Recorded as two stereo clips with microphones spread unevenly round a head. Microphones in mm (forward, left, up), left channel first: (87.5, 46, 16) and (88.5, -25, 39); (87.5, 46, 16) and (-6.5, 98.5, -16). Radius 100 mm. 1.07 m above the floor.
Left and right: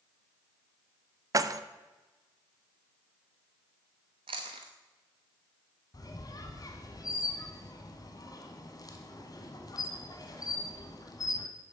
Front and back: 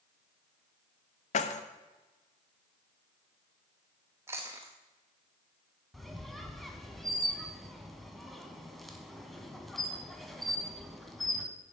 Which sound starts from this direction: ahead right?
Keys jangling, at 1.3 s.